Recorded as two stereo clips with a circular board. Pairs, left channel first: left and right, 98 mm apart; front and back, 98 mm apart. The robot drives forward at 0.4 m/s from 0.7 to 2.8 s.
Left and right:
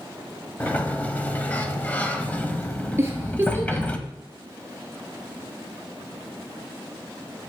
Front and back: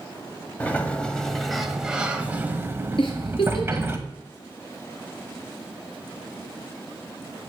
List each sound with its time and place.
0.6 s a sliding door: 45° left, 1.2 m; by 4.0 s 150° left, 1.2 m
3.0 s a giggle: 25° right, 2.5 m